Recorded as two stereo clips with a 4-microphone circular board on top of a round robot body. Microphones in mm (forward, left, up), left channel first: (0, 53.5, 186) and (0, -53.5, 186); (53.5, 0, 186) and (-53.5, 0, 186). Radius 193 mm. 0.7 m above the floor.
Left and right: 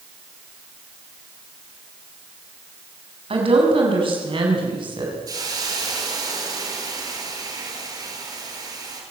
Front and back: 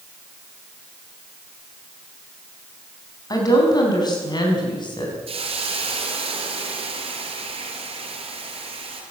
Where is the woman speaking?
55° right, 6 m; by 5.2 s 45° right, 6.5 m.